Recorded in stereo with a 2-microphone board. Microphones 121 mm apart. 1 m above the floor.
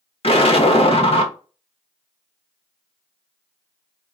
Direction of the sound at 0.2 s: 50° left (ahead or behind).